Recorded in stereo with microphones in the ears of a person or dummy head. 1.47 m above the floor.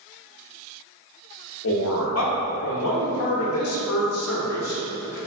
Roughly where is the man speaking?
Left.